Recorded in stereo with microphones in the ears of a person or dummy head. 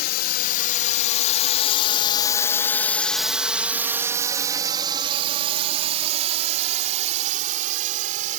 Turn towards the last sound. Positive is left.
turn(degrees=-50)  # may be behind; listen again after turning